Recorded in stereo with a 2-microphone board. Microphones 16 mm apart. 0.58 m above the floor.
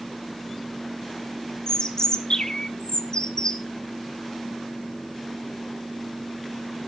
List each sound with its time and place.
1.7 s a bird: 50° left (ahead or behind), 1.3 m